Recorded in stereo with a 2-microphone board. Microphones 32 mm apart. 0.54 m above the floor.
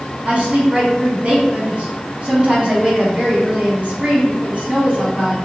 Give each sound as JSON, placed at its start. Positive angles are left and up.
{"t": 0.2, "sound": "a woman speaking", "side_deg": -35, "distance_m": 1.0}